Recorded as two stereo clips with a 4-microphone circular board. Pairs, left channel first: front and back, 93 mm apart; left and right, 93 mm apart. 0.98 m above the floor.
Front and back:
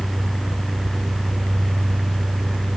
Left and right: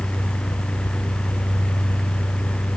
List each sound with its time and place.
Only background noise.